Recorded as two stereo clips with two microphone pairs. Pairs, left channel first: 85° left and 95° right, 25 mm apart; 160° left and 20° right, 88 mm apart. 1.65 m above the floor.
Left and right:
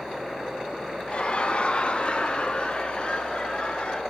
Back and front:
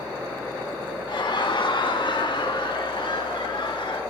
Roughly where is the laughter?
Behind left.